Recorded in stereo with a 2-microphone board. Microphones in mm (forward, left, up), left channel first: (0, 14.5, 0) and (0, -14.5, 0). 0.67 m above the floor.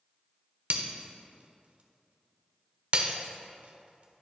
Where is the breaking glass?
45° right (ahead or behind), 0.7 m.